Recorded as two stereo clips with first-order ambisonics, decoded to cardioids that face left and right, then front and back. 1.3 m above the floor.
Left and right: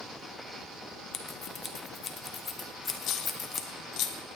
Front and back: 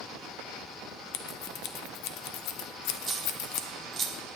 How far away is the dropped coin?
About 0.9 m.